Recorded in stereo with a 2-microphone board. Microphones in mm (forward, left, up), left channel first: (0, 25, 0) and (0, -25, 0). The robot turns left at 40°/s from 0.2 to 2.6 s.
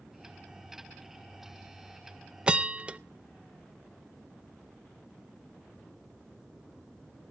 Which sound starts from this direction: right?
A bell, at 2.5 s.